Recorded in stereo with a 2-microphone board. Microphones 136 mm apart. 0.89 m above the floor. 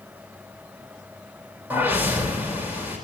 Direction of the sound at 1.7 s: 15° right (ahead or behind).